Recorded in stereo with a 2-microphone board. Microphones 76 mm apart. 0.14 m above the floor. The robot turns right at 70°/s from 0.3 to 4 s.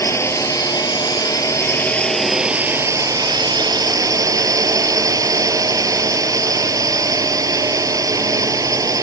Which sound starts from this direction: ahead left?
A drone, at 0.0 s.